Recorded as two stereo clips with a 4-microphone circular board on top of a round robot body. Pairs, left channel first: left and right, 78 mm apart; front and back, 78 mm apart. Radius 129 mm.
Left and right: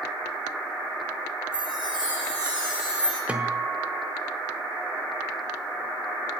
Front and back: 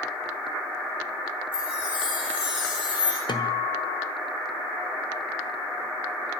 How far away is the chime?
About 8.5 m.